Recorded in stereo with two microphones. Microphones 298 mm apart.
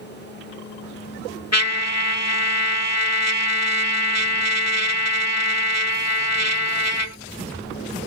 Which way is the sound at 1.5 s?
60° left (ahead or behind).